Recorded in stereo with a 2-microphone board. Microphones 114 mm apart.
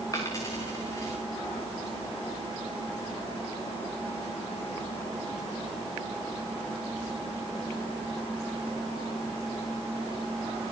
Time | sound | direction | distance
0.1 | a dropped coin | 30° left (ahead or behind) | 4.5 m